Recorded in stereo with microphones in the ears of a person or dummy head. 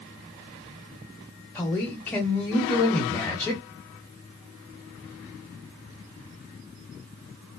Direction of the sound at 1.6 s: 5° left (ahead or behind).